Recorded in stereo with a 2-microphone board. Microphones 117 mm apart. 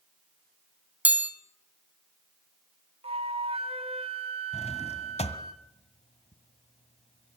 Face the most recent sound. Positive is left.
turn(degrees=65)  # may be behind; listen again after turning